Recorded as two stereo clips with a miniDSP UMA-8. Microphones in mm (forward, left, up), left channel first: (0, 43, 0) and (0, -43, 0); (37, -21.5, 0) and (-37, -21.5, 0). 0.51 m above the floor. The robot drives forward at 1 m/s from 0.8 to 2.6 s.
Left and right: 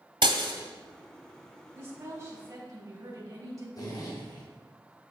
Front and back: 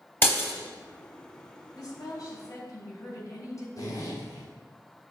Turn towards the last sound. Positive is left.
turn(degrees=45)